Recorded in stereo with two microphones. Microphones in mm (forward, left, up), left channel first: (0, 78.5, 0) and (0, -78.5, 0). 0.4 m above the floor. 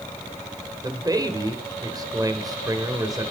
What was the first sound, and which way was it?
A man speaking, 25° right (ahead or behind).